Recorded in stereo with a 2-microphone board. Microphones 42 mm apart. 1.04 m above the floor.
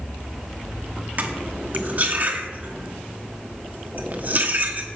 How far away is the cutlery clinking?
About 1.3 m.